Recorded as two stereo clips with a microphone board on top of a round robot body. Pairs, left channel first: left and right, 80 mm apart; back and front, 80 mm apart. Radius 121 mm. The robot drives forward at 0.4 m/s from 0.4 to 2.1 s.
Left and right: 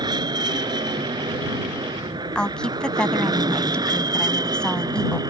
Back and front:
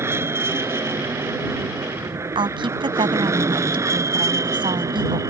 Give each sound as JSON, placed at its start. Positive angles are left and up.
{"t": 0.0, "sound": "an aircraft", "azimuth_deg": -60}
{"t": 2.4, "sound": "a woman speaking", "azimuth_deg": 10}